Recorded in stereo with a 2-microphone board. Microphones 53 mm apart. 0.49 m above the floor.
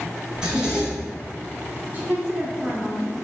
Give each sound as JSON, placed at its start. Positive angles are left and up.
{"t": 0.3, "sound": "a zipper", "side_deg": -15, "distance_m": 1.9}
{"t": 1.9, "sound": "a woman speaking", "side_deg": -35, "distance_m": 0.9}